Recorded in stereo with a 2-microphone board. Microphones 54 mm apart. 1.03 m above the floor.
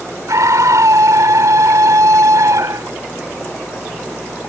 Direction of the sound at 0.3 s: 80° right.